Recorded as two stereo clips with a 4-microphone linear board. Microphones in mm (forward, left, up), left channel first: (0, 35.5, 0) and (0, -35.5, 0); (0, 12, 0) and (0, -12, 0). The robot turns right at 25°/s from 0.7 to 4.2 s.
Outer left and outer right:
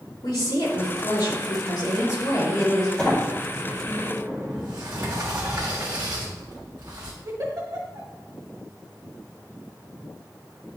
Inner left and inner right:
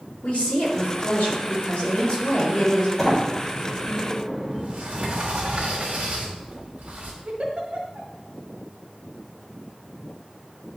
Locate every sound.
0.2 s a woman speaking: 85° left, 2.5 m; by 2.9 s 140° left, 2.5 m
3.0 s a sliding door: 165° left, 2 m; by 4.8 s 165° right, 2 m
4.5 s a sliding door: 75° right (ahead or behind), 2 m
7.2 s a giggle: 55° right (ahead or behind), 1.5 m